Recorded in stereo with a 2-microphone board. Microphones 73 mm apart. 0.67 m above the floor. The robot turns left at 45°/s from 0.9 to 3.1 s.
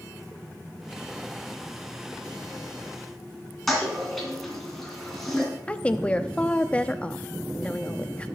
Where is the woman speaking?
15° left (ahead or behind), 0.6 m.